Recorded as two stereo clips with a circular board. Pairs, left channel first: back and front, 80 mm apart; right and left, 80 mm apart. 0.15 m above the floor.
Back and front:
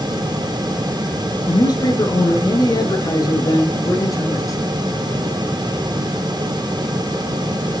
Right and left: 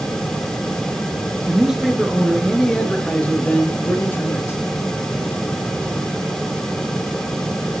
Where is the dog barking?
No dog barking in this recording.